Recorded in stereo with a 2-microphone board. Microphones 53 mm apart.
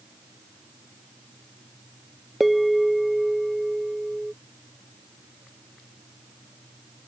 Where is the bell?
Centre (ahead or behind).